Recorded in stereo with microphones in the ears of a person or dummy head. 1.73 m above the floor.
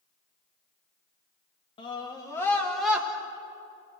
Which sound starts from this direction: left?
A scream, at 1.8 s.